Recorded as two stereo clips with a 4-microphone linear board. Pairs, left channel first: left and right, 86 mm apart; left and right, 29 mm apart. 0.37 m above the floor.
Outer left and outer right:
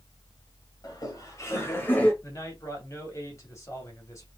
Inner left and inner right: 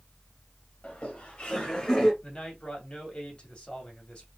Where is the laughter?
50° left (ahead or behind), 2.5 m; by 2.1 s 20° left (ahead or behind), 1.9 m.